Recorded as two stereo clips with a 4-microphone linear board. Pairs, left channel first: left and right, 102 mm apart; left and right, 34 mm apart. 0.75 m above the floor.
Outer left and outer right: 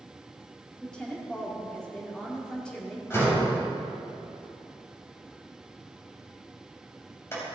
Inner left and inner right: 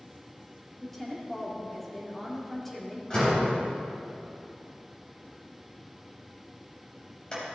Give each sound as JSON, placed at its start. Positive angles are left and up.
{"t": 0.8, "sound": "a woman speaking", "side_deg": 10, "distance_m": 2.0}
{"t": 3.1, "sound": "a door slam", "side_deg": 25, "distance_m": 3.0}